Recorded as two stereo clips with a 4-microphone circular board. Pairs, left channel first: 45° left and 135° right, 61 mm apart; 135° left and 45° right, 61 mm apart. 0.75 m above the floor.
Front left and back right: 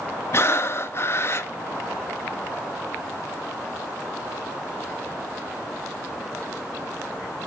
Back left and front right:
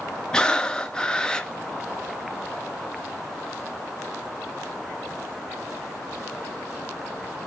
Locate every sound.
0.3 s breathing: 65° left, 0.6 m